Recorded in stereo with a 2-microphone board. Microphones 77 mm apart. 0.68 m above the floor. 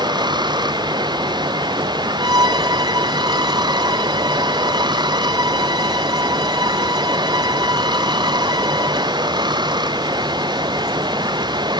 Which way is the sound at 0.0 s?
80° right.